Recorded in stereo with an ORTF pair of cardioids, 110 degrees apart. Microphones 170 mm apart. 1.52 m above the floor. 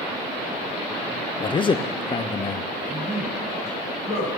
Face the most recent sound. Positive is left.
turn(degrees=70)